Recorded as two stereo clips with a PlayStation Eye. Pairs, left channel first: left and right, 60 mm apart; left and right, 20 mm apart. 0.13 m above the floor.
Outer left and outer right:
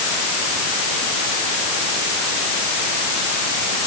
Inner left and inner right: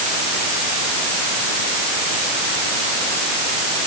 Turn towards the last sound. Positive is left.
No sound to turn to.